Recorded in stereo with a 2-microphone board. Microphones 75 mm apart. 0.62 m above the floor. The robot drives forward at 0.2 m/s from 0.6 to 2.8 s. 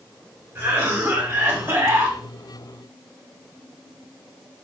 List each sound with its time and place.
0.6 s a cough: 35° right (ahead or behind), 2 m; by 2.2 s 30° right (ahead or behind), 2.5 m